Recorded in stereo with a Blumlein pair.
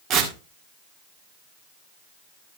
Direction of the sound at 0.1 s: 35° right.